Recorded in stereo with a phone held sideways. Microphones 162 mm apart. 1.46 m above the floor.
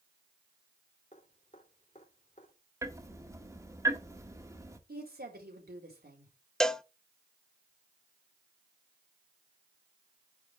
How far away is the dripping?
About 4 m.